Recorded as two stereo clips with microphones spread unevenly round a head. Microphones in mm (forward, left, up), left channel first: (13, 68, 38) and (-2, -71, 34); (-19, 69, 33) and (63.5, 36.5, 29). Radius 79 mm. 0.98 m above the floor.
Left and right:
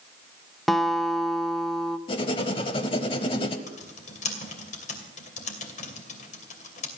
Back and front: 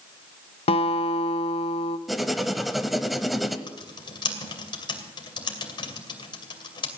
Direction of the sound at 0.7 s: 175° left.